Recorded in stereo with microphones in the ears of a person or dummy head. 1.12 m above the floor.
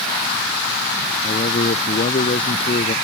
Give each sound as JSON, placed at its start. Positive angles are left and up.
{"t": 1.2, "sound": "a man speaking", "side_deg": 35}